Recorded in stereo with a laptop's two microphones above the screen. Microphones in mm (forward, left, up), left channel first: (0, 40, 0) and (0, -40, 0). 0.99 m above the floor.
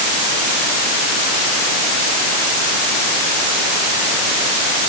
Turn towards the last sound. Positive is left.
No sound to turn to.